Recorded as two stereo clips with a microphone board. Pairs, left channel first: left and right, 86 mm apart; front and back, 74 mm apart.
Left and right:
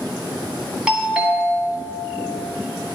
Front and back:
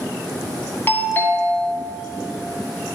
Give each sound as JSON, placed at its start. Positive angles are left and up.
{"t": 0.9, "sound": "a doorbell", "azimuth_deg": -25, "distance_m": 2.0}